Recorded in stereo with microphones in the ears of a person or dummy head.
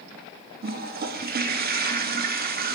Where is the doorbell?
No doorbell in this recording.